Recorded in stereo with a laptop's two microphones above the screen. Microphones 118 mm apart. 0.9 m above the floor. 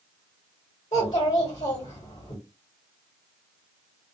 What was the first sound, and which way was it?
A child speaking, 65° left (ahead or behind).